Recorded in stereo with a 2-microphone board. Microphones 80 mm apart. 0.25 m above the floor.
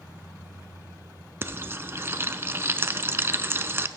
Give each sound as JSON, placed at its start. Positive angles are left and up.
{"t": 1.4, "sound": "frying", "side_deg": -30, "distance_m": 0.6}